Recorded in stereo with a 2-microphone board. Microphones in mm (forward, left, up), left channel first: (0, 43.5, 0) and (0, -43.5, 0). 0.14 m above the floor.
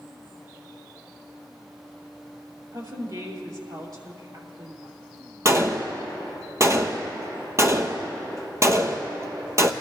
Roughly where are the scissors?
I don't hear scissors.